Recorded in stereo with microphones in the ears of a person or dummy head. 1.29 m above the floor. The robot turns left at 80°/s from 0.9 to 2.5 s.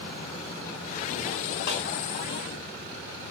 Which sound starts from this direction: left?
A snare drum, at 1.7 s.